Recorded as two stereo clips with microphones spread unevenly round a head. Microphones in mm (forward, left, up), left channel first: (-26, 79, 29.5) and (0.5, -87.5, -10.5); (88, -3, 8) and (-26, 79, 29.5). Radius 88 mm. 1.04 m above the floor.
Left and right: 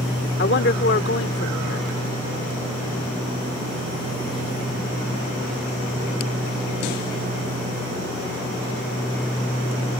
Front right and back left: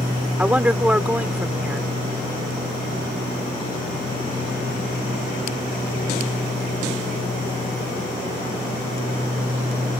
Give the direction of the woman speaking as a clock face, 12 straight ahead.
10 o'clock.